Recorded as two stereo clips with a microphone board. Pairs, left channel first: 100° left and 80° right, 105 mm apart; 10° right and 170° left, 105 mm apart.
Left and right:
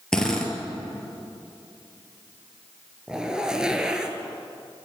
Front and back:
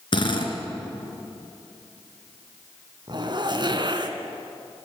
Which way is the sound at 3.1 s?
160° right.